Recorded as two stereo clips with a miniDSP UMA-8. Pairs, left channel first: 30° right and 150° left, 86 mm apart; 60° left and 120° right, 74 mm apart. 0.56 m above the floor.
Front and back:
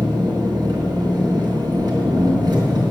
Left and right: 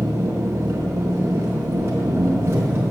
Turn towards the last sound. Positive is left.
turn(degrees=-175)